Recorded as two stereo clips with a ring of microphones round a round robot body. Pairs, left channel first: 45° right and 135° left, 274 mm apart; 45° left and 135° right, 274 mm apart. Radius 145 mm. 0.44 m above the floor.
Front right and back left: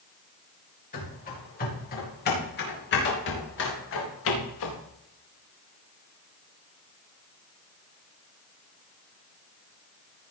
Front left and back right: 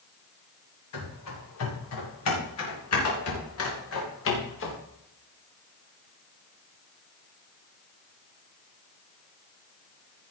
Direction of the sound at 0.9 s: 15° left.